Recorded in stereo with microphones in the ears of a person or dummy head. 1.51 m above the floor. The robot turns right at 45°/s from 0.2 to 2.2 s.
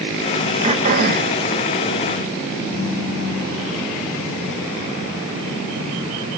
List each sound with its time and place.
0.6 s throat clearing: 150° right, 0.9 m; by 1.4 s 115° right, 0.9 m